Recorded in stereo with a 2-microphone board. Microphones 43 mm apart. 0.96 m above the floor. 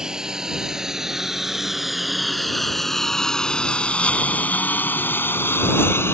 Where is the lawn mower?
20° right (ahead or behind); by 6.2 s 75° left (ahead or behind).